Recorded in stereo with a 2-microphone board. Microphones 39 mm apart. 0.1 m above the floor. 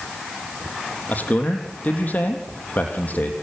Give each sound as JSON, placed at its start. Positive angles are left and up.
{"t": 1.1, "sound": "a man speaking", "side_deg": 45, "distance_m": 3.5}